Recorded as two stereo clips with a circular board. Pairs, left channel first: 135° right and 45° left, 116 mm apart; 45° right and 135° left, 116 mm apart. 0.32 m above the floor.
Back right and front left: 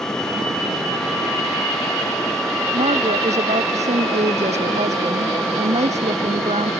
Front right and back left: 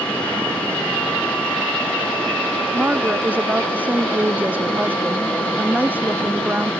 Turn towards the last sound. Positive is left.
turn(degrees=60)